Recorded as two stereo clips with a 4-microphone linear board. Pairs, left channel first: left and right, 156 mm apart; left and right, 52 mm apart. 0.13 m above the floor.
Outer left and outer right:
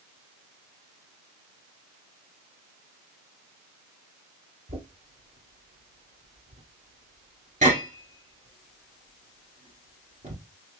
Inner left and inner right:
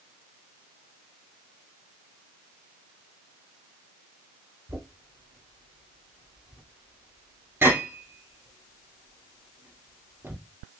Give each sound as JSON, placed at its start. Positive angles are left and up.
{"t": 4.7, "sound": "knocking", "side_deg": -50, "distance_m": 1.7}